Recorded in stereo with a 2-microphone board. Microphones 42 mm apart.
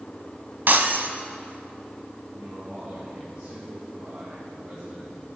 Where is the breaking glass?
55° right (ahead or behind), 1.3 m.